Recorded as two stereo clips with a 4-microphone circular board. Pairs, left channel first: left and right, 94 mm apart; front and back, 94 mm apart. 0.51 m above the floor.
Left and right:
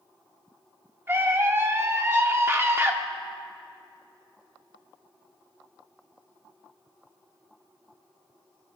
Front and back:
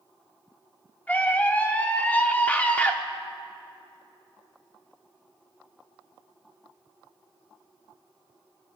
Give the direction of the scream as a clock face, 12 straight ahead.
2 o'clock.